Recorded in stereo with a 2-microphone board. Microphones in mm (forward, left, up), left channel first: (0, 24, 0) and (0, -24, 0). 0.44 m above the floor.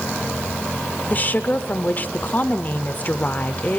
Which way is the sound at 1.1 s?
35° left (ahead or behind).